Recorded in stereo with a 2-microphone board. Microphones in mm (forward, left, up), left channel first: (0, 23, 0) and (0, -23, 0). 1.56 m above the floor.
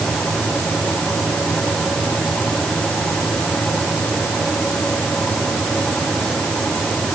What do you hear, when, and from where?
Only background noise.